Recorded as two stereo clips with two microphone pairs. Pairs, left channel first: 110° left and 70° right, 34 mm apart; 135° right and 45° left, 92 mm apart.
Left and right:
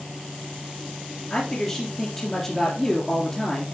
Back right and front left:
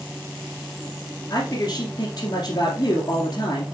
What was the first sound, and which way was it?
A man speaking, 175° right.